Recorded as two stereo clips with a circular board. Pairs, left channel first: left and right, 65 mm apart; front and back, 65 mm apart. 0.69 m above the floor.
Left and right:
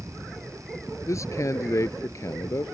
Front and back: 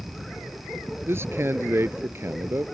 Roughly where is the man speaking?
Behind left.